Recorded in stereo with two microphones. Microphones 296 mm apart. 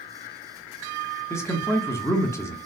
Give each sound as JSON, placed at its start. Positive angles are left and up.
{"t": 1.3, "sound": "a man speaking", "side_deg": 10, "distance_m": 0.8}